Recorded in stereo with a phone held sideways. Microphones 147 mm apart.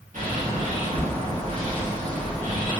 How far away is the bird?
About 1.6 m.